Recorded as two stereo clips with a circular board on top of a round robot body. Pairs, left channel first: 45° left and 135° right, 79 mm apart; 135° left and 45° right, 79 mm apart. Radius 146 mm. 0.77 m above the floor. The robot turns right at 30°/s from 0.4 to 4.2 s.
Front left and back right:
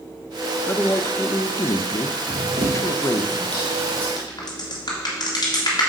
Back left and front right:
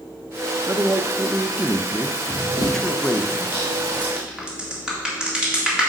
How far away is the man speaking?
About 0.7 m.